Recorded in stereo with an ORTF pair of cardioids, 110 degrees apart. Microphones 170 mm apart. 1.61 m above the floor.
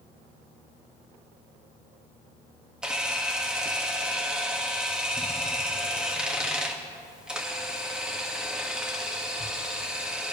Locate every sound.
2.8 s a camera shutter: 5° right, 2 m